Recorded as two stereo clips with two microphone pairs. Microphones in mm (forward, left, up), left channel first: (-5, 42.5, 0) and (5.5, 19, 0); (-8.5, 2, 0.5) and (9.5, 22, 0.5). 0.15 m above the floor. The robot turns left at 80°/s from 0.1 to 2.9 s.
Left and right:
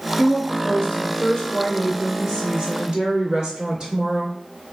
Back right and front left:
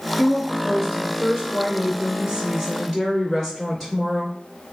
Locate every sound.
0.2 s a woman speaking: 155° left, 1.5 m; by 4.3 s 60° right, 1.5 m